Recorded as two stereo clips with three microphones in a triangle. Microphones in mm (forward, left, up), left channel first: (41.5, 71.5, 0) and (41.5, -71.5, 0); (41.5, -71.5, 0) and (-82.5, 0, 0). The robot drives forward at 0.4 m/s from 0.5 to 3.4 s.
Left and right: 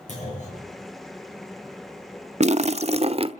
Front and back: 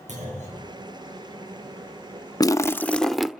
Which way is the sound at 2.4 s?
85° right.